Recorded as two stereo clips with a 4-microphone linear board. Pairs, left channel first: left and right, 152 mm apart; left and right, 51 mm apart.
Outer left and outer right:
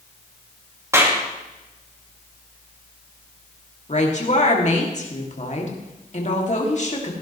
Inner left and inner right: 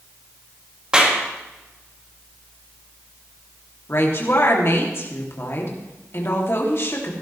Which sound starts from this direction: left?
A woman speaking, at 3.9 s.